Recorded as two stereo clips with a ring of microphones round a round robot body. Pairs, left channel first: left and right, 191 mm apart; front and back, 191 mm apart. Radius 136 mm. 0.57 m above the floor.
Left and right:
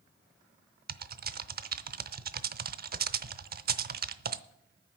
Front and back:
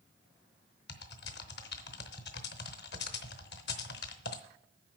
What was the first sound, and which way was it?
Typing on a keyboard, 50° right.